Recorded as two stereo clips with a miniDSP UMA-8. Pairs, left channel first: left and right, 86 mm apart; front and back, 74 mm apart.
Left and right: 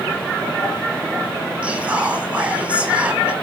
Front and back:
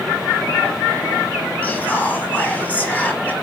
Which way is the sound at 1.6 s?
35° right.